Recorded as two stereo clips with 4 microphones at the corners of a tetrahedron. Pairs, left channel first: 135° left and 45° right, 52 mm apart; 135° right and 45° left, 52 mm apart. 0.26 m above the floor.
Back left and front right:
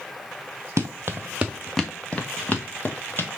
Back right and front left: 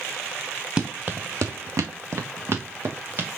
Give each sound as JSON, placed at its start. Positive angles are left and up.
{"t": 0.8, "sound": "running footsteps", "azimuth_deg": -20, "distance_m": 1.1}